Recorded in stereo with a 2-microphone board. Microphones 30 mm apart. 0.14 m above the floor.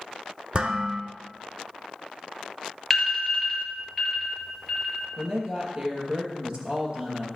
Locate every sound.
0.5 s dishes clattering: 40° right (ahead or behind), 1.3 m
2.9 s an alarm: 5° left (ahead or behind), 3.5 m
5.2 s a woman speaking: 40° right (ahead or behind), 3 m